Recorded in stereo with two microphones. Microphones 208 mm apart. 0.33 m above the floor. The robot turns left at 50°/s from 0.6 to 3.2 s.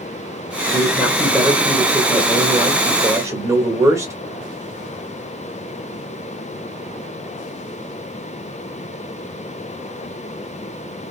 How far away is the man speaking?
About 1.4 m.